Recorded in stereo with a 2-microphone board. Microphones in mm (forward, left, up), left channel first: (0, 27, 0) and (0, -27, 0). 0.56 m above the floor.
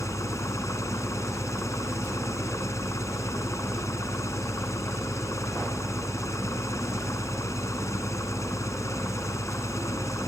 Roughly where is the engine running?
Left.